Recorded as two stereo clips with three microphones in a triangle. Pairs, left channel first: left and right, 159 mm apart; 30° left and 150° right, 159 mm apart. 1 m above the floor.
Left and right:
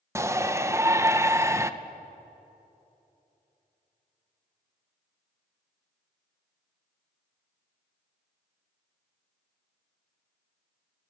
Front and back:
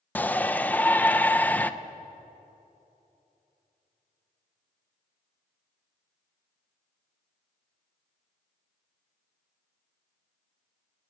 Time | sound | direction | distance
0.1 | a shout | 40° right | 0.7 m